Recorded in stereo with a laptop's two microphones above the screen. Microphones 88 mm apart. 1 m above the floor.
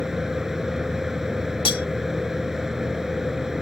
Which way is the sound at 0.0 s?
5° right (ahead or behind).